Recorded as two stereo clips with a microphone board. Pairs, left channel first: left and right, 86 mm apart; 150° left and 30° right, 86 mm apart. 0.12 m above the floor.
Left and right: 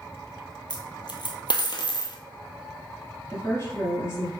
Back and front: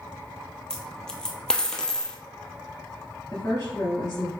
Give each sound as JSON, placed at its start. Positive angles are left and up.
{"t": 0.7, "sound": "a dropped coin", "azimuth_deg": 70, "distance_m": 0.8}
{"t": 3.3, "sound": "a woman speaking", "azimuth_deg": 120, "distance_m": 1.6}